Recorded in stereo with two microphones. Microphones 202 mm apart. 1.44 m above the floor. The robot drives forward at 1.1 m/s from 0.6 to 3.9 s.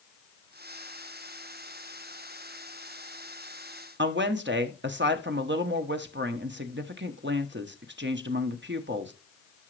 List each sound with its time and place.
4.0 s a woman speaking: 65° right (ahead or behind), 0.9 m